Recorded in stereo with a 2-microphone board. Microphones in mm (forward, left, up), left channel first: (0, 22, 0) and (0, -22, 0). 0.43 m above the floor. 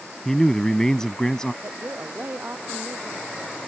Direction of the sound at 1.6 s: 55° right (ahead or behind).